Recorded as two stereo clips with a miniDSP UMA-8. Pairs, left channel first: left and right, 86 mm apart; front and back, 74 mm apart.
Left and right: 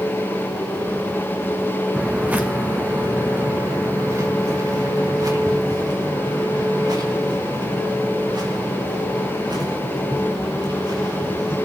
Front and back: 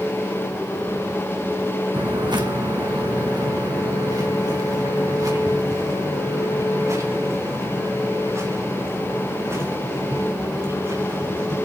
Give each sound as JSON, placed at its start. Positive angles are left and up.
{"t": 1.9, "sound": "footsteps", "azimuth_deg": -170, "distance_m": 1.6}